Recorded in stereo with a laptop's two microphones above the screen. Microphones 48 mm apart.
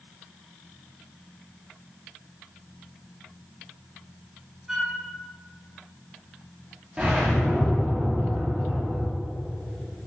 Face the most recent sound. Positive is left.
turn(degrees=-20)  # may be behind; listen again after turning